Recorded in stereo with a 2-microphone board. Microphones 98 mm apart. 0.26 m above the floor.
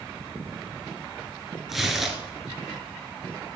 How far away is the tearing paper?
About 2.5 m.